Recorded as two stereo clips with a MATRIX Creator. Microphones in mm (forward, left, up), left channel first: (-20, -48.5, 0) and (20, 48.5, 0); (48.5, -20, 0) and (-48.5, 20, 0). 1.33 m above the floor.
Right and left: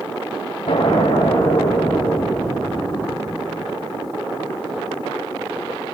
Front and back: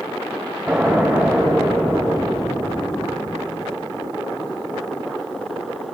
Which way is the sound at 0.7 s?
115° right.